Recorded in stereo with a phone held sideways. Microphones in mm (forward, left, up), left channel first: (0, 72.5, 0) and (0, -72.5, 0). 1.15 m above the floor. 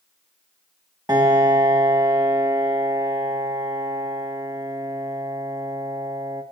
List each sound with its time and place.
1.1 s a piano: 25° right (ahead or behind), 1.4 m